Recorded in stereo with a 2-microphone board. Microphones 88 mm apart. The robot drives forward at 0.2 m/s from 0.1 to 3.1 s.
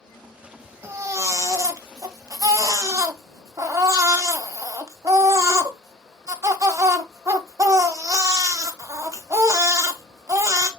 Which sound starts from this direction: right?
A baby crying, at 0.8 s.